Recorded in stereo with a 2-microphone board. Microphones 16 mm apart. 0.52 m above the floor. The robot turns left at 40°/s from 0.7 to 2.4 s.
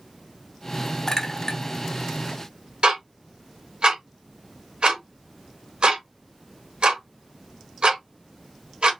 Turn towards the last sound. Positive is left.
turn(degrees=-75)  # may be behind; listen again after turning